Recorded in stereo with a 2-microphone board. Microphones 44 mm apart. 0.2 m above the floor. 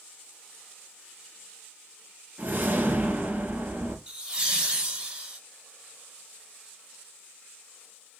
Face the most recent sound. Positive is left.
turn(degrees=-20)  # may be behind; listen again after turning